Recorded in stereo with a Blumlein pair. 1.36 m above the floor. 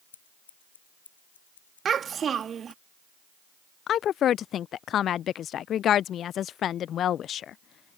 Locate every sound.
0.1 s scissors: 65° left
1.9 s a child speaking: 20° right
3.9 s a woman speaking: 30° left